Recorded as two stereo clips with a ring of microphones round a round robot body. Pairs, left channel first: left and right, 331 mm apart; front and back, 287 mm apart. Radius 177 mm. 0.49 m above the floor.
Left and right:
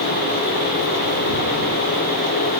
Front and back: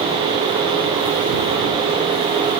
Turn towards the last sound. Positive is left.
No sound to turn to.